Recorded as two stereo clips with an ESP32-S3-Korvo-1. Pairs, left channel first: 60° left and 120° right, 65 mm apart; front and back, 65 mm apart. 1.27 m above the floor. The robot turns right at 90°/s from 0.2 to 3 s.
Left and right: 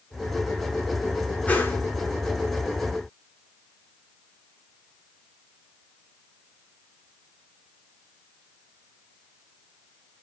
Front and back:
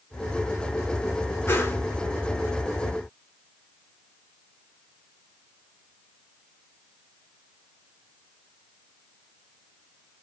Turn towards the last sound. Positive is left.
turn(degrees=145)